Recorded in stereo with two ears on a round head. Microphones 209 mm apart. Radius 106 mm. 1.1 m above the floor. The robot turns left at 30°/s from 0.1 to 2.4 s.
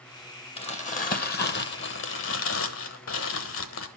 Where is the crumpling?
150° left, 1.4 m; by 3.9 s 95° left, 1.4 m.